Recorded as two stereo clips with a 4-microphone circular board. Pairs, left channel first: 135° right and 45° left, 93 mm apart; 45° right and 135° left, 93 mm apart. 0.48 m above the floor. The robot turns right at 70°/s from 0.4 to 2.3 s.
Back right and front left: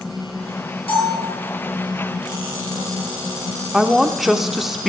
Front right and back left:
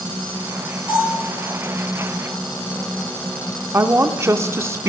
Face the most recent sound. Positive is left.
turn(degrees=130)